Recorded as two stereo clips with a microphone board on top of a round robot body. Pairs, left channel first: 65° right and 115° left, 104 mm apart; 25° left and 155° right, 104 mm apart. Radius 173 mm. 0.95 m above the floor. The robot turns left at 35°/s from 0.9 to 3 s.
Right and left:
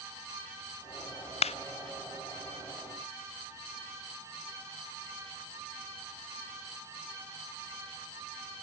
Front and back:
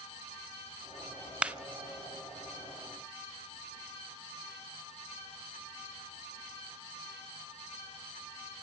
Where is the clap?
80° right, 0.6 m; by 1.6 s 85° right, 0.6 m.